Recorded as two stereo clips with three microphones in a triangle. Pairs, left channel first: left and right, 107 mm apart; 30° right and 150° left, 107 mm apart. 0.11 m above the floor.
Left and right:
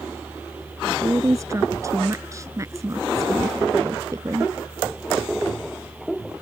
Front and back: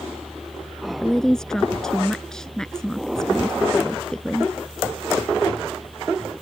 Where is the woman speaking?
110° right.